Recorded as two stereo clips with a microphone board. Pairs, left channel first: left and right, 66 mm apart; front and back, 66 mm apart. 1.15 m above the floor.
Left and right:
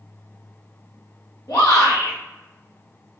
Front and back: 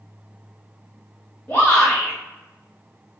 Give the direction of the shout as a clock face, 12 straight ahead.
10 o'clock.